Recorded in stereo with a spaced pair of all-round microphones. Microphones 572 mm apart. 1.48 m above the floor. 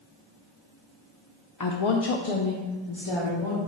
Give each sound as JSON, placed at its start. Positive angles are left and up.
{"t": 1.6, "sound": "a woman speaking", "side_deg": 35, "distance_m": 0.7}